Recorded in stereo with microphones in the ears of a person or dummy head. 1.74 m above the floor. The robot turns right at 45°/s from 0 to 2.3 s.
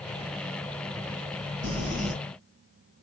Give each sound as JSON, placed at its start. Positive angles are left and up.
{"t": 1.6, "sound": "crumpling", "side_deg": -65, "distance_m": 1.6}